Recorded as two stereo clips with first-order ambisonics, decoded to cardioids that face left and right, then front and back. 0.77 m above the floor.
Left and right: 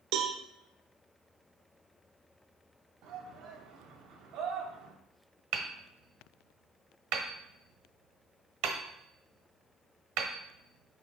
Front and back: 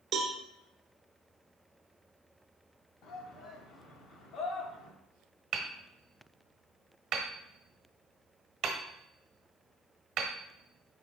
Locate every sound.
0.1 s a cowbell: 120° right, 1.1 m
3.0 s a shout: 50° right, 1.4 m
5.5 s hammering: 120° right, 1.2 m